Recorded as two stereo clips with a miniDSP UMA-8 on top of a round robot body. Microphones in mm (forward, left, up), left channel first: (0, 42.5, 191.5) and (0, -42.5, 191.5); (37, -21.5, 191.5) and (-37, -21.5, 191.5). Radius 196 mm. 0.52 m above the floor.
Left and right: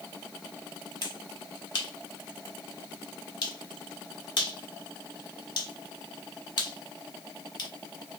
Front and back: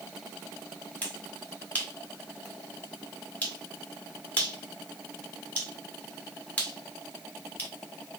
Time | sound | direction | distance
1.0 | a finger snap | 70° left | 1.9 m